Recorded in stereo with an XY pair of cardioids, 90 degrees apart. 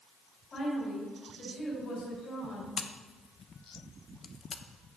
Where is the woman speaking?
50° left, 5 m.